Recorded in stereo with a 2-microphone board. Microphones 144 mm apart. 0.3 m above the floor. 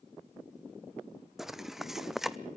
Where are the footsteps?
5° right (ahead or behind), 0.7 m.